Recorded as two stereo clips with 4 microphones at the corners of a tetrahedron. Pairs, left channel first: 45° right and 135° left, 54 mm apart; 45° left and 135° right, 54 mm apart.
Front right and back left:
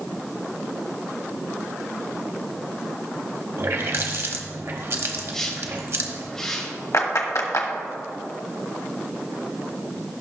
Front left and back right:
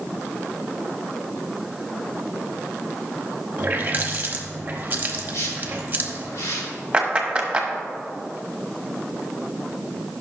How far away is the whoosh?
About 2.5 m.